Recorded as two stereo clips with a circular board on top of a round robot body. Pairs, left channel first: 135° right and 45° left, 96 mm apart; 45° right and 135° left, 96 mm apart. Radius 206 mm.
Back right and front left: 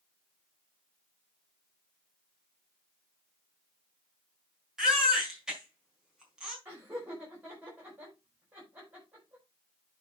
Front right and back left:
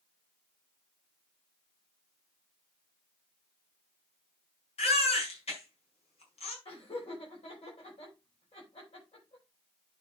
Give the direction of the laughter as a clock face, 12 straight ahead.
1 o'clock.